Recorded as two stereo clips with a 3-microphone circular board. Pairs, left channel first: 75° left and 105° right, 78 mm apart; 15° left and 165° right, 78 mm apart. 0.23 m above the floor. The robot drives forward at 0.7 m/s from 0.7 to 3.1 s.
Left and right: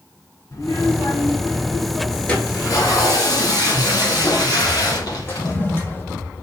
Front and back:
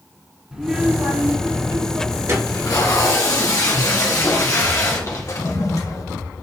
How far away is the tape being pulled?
About 1.8 m.